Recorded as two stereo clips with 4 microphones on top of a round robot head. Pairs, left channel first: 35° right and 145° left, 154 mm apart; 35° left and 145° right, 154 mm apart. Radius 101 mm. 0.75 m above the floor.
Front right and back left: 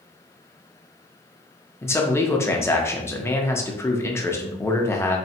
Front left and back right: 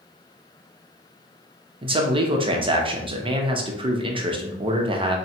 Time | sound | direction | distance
1.8 | a man speaking | 105° right | 0.8 m